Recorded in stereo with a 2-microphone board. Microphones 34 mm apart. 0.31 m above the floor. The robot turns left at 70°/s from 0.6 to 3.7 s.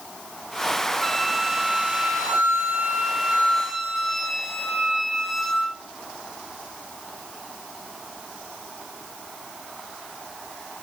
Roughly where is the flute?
Ahead.